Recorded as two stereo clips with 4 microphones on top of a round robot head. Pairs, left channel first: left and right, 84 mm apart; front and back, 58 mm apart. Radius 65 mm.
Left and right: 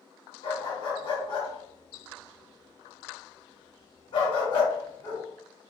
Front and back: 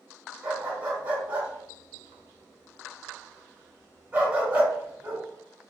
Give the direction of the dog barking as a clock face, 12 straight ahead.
8 o'clock.